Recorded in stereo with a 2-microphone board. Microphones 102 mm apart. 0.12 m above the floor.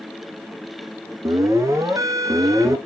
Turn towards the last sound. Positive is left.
turn(degrees=-35)  # may be behind; listen again after turning